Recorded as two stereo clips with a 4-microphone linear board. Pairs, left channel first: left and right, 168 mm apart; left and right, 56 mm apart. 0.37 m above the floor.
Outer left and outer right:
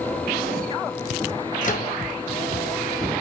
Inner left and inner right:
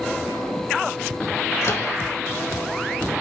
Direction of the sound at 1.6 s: 55° left (ahead or behind).